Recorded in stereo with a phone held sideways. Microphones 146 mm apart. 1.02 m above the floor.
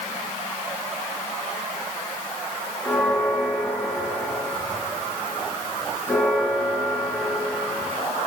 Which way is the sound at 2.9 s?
10° left (ahead or behind).